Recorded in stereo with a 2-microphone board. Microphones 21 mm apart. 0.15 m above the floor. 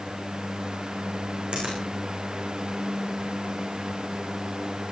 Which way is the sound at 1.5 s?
65° right (ahead or behind).